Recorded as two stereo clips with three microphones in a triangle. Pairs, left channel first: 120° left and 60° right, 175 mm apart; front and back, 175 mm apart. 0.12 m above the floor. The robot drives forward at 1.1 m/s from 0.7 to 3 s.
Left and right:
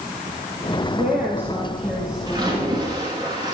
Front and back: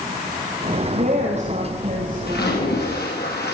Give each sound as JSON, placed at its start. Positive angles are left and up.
{"t": 0.9, "sound": "a woman speaking", "azimuth_deg": -135, "distance_m": 4.0}
{"t": 2.3, "sound": "a splash", "azimuth_deg": 5, "distance_m": 6.0}